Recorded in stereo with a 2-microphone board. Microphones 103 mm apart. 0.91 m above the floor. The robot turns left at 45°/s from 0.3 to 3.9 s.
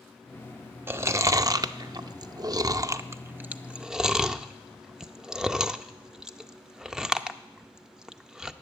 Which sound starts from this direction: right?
Chewing, at 0.9 s.